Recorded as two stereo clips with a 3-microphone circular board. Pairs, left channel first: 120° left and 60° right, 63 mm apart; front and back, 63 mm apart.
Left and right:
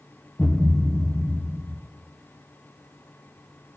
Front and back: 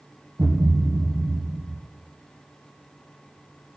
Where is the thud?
170° right, 2.5 m.